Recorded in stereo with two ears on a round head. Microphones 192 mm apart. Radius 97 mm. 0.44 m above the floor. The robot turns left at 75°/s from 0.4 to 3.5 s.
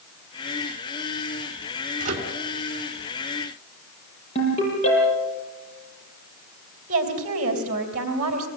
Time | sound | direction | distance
2.0 | a microwave | 40° right (ahead or behind) | 3.5 m
4.3 | a ringtone | 30° left (ahead or behind) | 9 m
6.9 | a woman speaking | 40° right (ahead or behind) | 3 m